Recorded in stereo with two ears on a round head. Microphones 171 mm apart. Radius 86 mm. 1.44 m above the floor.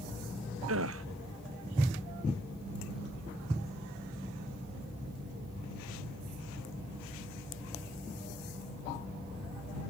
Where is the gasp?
75° right (ahead or behind).